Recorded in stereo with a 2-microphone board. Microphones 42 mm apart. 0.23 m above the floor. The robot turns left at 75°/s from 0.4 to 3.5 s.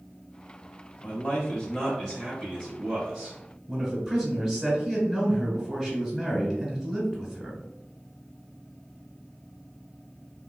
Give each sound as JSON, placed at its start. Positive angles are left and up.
{"t": 1.0, "sound": "a man speaking", "side_deg": 20, "distance_m": 1.0}
{"t": 3.7, "sound": "a man speaking", "side_deg": -10, "distance_m": 1.1}